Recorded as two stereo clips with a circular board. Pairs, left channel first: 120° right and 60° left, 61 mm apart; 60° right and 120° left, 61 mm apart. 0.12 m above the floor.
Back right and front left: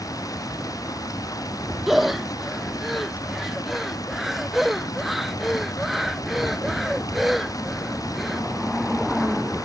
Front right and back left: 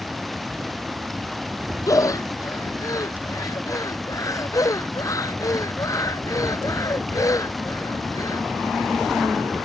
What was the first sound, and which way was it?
Running water, 150° right.